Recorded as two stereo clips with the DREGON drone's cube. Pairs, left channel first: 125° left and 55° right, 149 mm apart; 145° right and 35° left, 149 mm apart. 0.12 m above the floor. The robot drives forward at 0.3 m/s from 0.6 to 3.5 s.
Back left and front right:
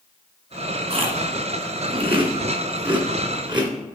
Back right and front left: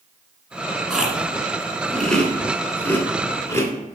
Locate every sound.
0.9 s chewing: 50° right, 1.9 m; by 3.7 s 85° right, 1.7 m